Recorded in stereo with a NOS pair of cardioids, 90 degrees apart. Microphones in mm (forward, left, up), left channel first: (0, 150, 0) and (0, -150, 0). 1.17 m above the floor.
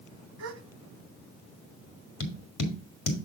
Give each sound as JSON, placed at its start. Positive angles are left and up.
{"t": 0.4, "sound": "a gasp", "azimuth_deg": -55, "distance_m": 1.2}
{"t": 2.2, "sound": "tapping", "azimuth_deg": 60, "distance_m": 2.0}